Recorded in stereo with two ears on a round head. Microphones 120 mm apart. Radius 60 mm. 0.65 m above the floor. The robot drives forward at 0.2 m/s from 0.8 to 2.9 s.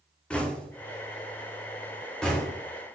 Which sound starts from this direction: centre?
Knocking, at 0.3 s.